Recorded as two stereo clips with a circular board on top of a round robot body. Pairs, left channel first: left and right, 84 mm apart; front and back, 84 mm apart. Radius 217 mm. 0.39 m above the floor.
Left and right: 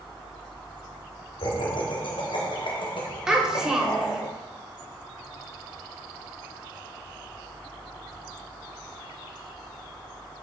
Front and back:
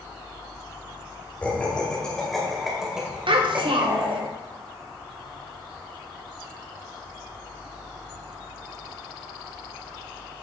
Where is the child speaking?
170° right, 1.6 m.